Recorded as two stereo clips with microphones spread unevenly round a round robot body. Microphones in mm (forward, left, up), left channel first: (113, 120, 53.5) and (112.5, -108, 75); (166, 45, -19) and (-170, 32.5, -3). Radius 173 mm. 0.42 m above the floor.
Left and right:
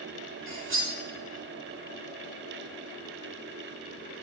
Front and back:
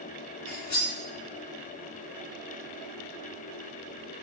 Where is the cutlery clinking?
60° right, 1.7 m.